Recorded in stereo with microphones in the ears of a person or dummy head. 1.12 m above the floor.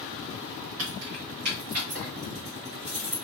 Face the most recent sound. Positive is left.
turn(degrees=-40)  # may be behind; listen again after turning